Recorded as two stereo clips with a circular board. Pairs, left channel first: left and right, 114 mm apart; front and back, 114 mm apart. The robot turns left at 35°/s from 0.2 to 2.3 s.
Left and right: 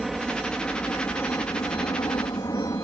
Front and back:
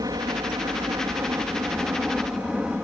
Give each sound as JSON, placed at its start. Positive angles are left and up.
{"t": 0.0, "sound": "a helicopter", "azimuth_deg": 180}